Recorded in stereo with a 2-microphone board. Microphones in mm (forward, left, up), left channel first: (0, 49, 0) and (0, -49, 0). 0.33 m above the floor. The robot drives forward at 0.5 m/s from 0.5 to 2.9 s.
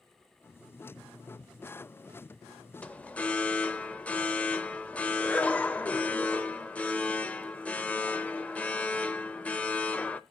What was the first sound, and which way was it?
An alarm, 15° left (ahead or behind).